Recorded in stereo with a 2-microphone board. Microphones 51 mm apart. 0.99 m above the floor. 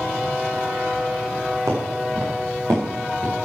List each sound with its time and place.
1.7 s footsteps: 75° right (ahead or behind), 5 m; by 3.4 s 65° right (ahead or behind), 5.5 m